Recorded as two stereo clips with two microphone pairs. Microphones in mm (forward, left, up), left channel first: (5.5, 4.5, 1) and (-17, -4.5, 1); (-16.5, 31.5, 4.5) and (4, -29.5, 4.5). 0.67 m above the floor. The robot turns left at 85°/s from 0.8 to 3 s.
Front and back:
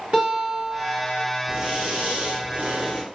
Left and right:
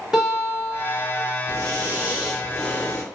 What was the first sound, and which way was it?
A guitar, 145° right.